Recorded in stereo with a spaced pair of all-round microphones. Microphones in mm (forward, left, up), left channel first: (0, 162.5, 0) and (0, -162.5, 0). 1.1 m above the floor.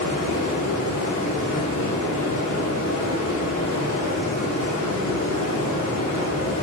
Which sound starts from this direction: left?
Running water, at 0.0 s.